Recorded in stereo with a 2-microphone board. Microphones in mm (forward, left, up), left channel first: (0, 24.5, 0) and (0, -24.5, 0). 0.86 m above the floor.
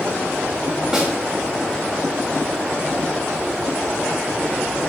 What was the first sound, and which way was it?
A snare drum, 15° right (ahead or behind).